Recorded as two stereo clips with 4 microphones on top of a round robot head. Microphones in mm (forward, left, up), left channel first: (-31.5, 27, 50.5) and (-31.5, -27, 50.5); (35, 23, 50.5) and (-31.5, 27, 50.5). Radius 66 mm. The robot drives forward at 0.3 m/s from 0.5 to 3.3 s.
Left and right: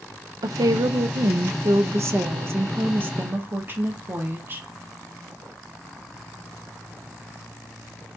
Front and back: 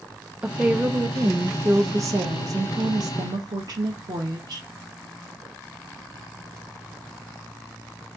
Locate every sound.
0.4 s a woman speaking: 105° right, 0.7 m; by 4.7 s 145° right, 1.2 m